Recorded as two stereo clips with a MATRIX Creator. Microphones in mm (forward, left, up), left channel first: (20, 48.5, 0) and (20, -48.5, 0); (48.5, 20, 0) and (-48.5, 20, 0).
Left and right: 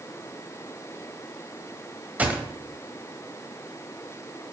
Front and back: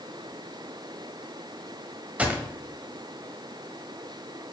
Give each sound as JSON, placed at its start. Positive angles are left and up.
{"t": 2.2, "sound": "a gunshot", "azimuth_deg": -135, "distance_m": 1.1}